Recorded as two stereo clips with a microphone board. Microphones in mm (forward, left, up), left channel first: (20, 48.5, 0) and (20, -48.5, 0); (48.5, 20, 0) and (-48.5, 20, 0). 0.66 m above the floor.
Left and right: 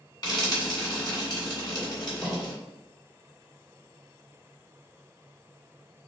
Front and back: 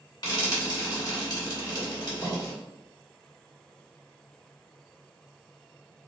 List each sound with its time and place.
0.2 s frying: 45° left, 1.7 m